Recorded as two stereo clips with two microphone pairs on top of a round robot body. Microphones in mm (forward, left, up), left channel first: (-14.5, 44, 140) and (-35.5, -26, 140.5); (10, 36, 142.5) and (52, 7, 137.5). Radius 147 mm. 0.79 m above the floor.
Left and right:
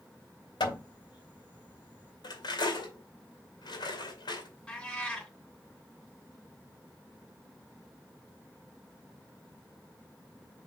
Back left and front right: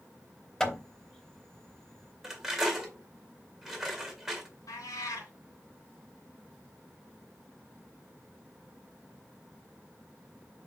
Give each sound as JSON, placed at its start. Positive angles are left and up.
{"t": 0.6, "sound": "hammering", "azimuth_deg": 65, "distance_m": 2.5}
{"t": 2.2, "sound": "cutlery clinking", "azimuth_deg": 50, "distance_m": 2.0}
{"t": 4.7, "sound": "a cat meowing", "azimuth_deg": 155, "distance_m": 2.5}